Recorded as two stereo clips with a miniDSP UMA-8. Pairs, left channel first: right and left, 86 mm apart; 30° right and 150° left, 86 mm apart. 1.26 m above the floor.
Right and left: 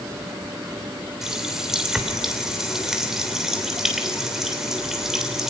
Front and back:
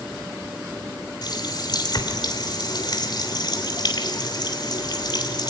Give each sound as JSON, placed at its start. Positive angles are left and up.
{"t": 1.2, "sound": "a running tap", "azimuth_deg": 5, "distance_m": 3.0}